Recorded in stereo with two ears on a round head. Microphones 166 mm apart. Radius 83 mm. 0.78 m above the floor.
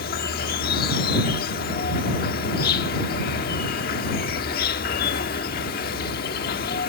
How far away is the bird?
No bird in this recording.